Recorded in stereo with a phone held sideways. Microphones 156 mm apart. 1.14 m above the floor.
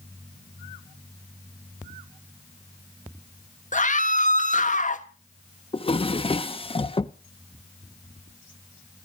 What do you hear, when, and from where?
3.7 s a scream: 55° left (ahead or behind), 1.3 m
5.7 s a drawer: 35° left (ahead or behind), 0.7 m